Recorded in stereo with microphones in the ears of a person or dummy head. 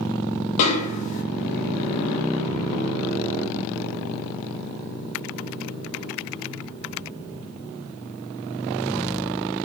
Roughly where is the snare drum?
Left.